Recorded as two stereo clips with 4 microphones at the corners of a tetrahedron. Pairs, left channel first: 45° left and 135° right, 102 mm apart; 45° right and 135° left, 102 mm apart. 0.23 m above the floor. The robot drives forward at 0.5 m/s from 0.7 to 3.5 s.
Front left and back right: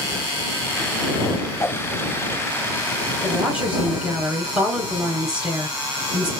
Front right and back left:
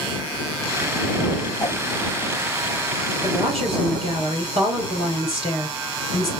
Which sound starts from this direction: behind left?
A woman speaking, at 3.2 s.